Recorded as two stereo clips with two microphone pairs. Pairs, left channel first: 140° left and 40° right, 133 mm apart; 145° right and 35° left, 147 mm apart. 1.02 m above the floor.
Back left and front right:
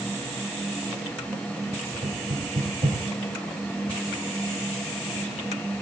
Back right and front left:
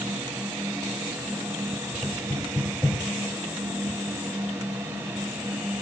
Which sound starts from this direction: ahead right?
Knocking, at 2.0 s.